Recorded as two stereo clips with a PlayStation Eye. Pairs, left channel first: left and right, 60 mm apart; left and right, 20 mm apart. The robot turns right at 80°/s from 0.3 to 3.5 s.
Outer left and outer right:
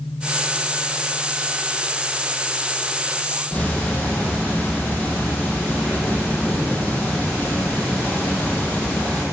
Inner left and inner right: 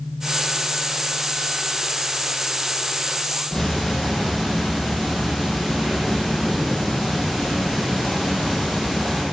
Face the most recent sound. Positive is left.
turn(degrees=20)  # may be behind; listen again after turning